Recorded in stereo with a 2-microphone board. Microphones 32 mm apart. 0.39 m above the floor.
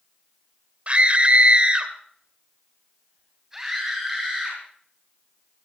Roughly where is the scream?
Right.